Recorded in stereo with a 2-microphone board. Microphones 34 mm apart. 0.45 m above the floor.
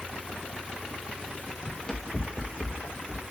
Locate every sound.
1.6 s running footsteps: 25° left (ahead or behind), 1.6 m; by 3.2 s 45° left (ahead or behind), 2.5 m